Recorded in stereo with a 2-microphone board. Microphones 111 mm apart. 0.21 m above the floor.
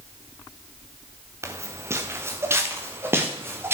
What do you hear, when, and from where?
1.4 s footsteps: 25° right (ahead or behind), 1.5 m; by 3.7 s 20° right (ahead or behind), 3 m